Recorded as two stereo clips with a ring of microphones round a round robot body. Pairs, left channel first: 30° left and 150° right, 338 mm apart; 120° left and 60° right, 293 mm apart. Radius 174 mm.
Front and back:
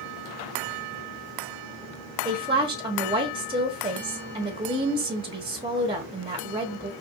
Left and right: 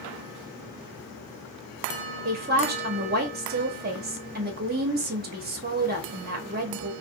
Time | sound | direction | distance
2.2 | a woman speaking | 85° right | 1.0 m